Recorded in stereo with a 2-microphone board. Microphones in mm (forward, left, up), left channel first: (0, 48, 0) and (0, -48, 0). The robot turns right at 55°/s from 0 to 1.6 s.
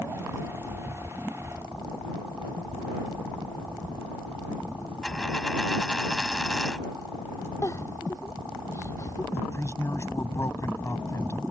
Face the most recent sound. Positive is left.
turn(degrees=30)  # may be behind; listen again after turning